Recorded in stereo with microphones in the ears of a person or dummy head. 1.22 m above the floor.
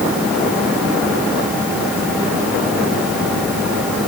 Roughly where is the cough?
I don't hear a cough.